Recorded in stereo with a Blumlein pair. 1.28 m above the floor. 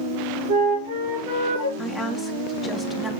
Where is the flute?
55° right, 4 m.